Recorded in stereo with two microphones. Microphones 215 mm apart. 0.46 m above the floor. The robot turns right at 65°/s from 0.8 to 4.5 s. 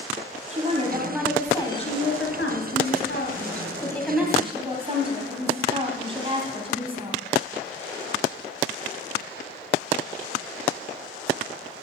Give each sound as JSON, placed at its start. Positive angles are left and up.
{"t": 0.5, "sound": "a woman speaking", "azimuth_deg": -35, "distance_m": 3.0}